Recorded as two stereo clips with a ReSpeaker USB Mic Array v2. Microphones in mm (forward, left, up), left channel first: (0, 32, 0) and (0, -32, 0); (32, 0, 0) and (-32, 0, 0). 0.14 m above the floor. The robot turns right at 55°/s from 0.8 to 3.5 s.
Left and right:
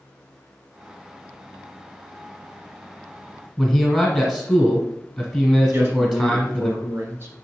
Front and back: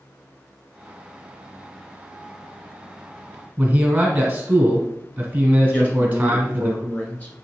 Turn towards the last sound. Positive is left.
turn(degrees=-50)